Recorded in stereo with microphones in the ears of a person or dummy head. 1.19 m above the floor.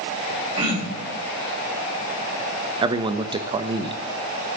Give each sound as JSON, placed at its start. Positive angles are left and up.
{"t": 0.6, "sound": "throat clearing", "side_deg": -30, "distance_m": 4.5}
{"t": 2.8, "sound": "a man speaking", "side_deg": -20, "distance_m": 1.2}